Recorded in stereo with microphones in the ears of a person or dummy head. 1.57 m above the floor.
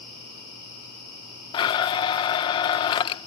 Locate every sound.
1.5 s a blender: 25° left (ahead or behind)